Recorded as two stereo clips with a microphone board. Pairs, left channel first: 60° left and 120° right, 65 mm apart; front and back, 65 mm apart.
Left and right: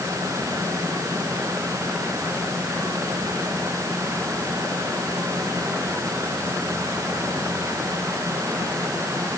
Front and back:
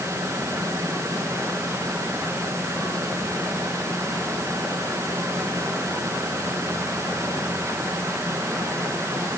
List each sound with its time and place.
Only background noise.